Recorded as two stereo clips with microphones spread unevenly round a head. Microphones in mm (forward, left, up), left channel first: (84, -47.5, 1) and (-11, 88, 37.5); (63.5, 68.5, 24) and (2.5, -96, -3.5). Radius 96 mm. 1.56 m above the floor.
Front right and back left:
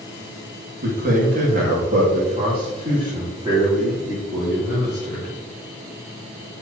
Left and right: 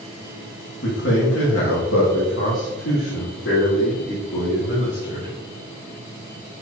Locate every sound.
0.8 s a man speaking: 100° left, 1.8 m; by 5.3 s 40° left, 4 m